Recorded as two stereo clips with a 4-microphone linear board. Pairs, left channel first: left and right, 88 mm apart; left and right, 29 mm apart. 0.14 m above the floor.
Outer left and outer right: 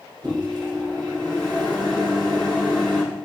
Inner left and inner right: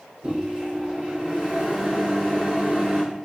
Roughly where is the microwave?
Right.